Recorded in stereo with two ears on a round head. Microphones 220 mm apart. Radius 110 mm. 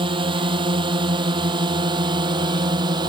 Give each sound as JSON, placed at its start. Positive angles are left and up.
{"t": 0.0, "sound": "a drone", "side_deg": -20}